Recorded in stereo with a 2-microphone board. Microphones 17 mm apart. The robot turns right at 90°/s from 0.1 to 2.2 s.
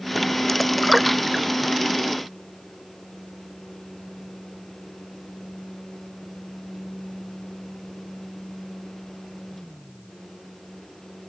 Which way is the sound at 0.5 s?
15° left (ahead or behind).